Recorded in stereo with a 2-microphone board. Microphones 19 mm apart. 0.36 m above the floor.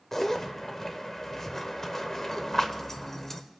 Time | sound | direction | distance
0.1 | a zipper | 25° left (ahead or behind) | 0.8 m